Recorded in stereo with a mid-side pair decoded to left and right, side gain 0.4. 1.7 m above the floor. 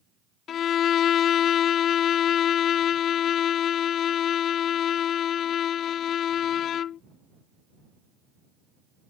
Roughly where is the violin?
Left.